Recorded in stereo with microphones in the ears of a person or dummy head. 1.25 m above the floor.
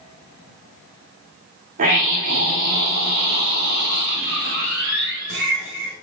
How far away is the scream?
About 3 m.